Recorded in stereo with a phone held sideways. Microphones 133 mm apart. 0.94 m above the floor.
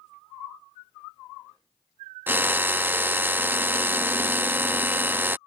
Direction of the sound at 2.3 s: 15° right (ahead or behind).